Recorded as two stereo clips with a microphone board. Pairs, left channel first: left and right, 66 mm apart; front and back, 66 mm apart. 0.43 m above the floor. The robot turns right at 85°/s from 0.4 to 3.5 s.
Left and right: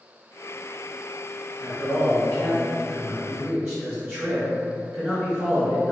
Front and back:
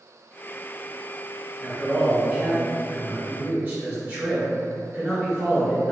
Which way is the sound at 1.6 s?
55° left.